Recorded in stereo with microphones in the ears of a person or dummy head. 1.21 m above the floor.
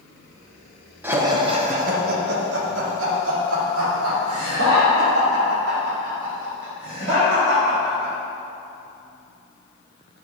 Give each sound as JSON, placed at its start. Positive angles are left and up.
{"t": 1.0, "sound": "laughter", "side_deg": -10, "distance_m": 1.3}